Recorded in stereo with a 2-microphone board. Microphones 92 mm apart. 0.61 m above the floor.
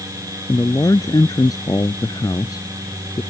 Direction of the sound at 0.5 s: 40° left (ahead or behind).